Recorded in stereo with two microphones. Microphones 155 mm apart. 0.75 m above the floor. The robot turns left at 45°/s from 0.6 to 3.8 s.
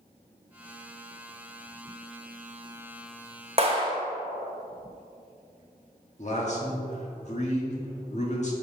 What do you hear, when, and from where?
3.6 s a clap: 40° right (ahead or behind), 1.0 m; by 3.9 s 30° right (ahead or behind), 1.0 m
6.2 s a man speaking: 50° left (ahead or behind), 1.5 m